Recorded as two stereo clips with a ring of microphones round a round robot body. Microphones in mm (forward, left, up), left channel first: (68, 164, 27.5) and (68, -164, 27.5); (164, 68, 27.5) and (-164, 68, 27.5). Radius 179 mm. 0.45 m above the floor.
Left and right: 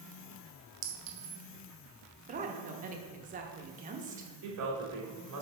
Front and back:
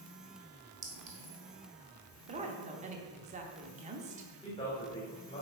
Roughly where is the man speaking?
Right.